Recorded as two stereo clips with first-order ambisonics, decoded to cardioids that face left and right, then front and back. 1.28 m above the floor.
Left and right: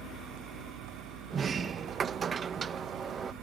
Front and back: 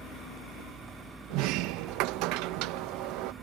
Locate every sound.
0.0 s a vehicle: 105° right
1.3 s a sliding door: 155° right